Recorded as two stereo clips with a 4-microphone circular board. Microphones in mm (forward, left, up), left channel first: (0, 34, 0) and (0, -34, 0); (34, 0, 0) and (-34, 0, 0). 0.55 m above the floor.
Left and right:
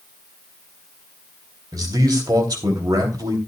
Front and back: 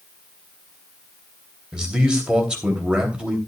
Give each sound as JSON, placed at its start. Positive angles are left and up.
{"t": 1.7, "sound": "a man speaking", "azimuth_deg": -100, "distance_m": 3.0}